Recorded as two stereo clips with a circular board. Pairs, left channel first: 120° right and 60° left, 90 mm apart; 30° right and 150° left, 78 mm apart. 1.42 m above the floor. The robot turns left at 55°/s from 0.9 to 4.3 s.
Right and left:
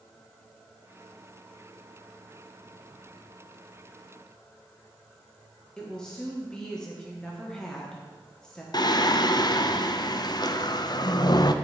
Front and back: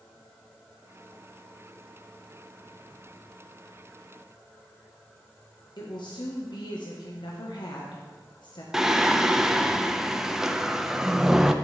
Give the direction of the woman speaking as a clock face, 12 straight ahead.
1 o'clock.